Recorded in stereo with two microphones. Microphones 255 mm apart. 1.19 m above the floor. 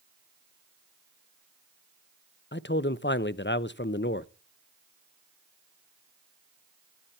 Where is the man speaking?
45° left (ahead or behind), 0.6 m.